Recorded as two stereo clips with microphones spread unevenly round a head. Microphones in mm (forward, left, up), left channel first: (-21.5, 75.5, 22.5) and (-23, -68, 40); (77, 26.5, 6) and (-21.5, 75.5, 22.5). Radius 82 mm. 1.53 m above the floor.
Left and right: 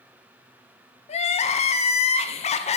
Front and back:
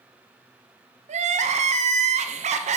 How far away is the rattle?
I don't hear a rattle.